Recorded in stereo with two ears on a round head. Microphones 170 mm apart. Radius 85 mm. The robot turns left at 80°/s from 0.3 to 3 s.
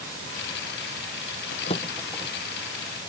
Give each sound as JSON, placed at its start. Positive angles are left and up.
{"t": 1.5, "sound": "a drawer", "side_deg": 50}